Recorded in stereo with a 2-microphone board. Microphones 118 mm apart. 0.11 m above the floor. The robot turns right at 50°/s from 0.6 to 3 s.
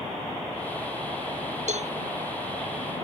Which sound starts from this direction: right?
A cowbell, at 1.7 s.